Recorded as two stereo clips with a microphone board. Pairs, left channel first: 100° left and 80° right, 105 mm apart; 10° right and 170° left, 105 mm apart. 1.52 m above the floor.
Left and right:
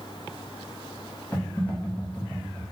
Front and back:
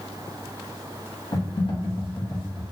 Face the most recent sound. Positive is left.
turn(degrees=25)